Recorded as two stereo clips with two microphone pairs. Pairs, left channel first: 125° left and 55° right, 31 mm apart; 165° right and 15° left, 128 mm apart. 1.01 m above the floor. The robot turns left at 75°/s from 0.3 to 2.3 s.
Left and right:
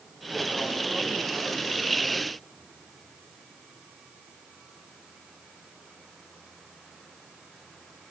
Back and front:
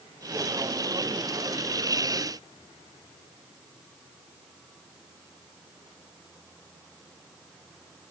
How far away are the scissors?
No scissors in this recording.